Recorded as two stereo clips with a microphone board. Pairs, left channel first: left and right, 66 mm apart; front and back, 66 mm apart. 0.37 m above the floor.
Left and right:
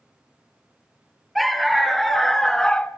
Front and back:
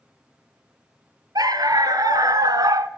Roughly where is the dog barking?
Behind.